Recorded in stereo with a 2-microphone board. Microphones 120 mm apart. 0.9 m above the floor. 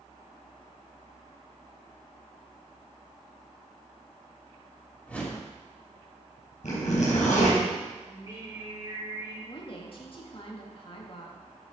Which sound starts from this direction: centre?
A whoosh, at 5.1 s.